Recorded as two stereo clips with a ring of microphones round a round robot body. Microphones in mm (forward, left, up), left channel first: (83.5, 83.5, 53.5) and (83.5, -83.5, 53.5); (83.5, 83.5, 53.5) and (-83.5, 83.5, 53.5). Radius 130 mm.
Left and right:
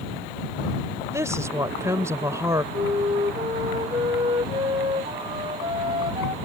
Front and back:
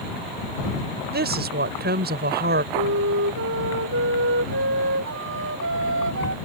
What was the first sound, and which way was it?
A woman speaking, 165° right.